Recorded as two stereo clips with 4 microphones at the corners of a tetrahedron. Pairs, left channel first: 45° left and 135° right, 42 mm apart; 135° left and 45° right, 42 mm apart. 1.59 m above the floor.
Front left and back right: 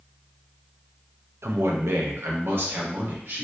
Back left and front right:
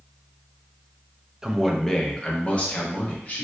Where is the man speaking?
120° right, 0.5 m; by 3.4 s 175° right, 1.4 m.